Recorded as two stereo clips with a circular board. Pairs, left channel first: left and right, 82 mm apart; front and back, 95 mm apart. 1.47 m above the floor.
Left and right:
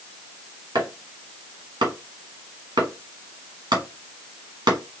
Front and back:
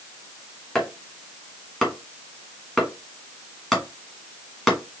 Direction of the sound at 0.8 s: 85° right.